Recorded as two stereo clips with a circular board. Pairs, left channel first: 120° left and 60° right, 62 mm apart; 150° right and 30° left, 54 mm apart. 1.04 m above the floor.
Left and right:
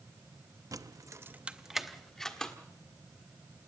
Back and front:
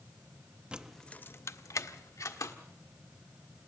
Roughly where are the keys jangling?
Ahead right.